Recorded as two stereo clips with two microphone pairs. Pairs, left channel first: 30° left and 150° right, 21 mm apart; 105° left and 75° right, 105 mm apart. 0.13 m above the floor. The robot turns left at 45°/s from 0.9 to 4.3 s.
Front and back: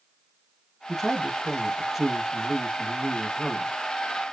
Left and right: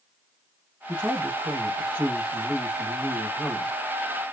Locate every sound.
0.9 s a man speaking: 80° right, 1.1 m; by 3.7 s 150° left, 1.1 m